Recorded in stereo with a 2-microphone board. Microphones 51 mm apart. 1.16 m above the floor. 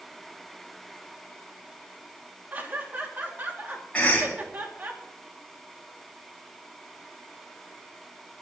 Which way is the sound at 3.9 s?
25° left (ahead or behind).